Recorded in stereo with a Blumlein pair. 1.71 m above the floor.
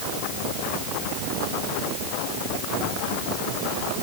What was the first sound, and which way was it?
Only background noise.